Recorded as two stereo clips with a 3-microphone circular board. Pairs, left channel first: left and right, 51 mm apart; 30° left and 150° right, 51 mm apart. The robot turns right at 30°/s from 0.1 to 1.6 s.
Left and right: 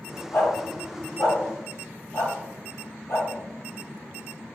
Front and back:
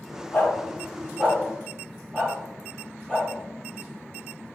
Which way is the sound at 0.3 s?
60° left.